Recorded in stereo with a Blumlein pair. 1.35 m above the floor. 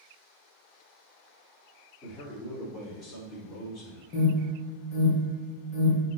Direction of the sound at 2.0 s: 25° left.